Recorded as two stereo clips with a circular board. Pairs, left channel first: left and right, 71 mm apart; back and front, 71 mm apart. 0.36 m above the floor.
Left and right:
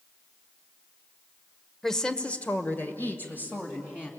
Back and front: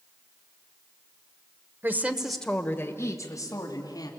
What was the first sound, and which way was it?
A woman speaking, 10° left.